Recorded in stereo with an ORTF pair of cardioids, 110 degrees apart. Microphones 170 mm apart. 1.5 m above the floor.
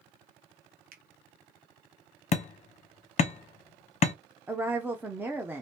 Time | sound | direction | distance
0.9 | a finger snap | 55° right | 0.8 m
2.3 | hammering | 40° left | 0.7 m
4.5 | a woman speaking | 10° right | 0.6 m